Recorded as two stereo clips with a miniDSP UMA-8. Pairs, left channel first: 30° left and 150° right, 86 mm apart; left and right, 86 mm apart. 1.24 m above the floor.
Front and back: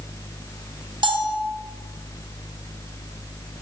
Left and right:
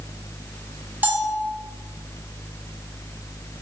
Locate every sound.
1.0 s a bell: 160° right, 1.1 m